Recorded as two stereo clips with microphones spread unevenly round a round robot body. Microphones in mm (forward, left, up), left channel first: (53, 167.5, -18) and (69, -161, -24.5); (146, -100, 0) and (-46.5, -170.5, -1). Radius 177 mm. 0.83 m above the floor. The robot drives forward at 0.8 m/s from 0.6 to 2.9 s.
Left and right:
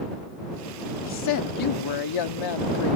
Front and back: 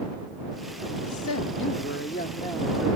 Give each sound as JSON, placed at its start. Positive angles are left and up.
{"t": 1.0, "sound": "a woman speaking", "azimuth_deg": 50}